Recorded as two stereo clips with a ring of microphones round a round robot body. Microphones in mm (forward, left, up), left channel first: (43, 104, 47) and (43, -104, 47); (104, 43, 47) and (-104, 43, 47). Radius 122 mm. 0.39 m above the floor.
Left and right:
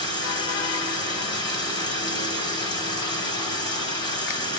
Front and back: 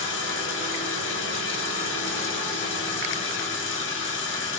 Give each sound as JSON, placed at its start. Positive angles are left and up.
{"t": 0.0, "sound": "running water", "azimuth_deg": 20, "distance_m": 1.5}